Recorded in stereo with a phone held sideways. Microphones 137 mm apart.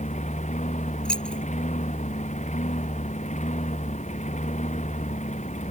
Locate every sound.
0.0 s a lawn mower: 60° left (ahead or behind)
1.1 s keys jangling: 5° left (ahead or behind)